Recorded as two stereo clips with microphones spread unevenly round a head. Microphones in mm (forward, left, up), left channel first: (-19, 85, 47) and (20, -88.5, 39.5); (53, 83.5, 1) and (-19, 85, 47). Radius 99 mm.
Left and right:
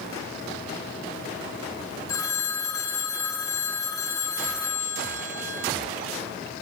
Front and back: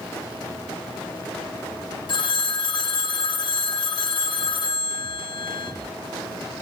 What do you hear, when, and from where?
2.1 s a phone ringing: 35° left, 0.9 m